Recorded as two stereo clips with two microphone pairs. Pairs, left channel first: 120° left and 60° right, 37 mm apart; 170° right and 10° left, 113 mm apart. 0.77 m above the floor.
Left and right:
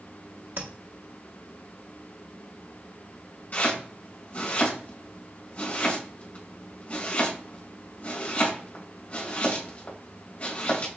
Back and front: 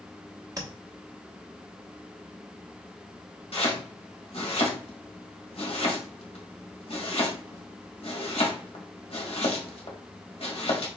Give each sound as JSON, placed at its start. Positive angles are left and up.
{"t": 0.6, "sound": "tapping", "azimuth_deg": -45, "distance_m": 1.2}
{"t": 3.5, "sound": "chopping", "azimuth_deg": 165, "distance_m": 1.7}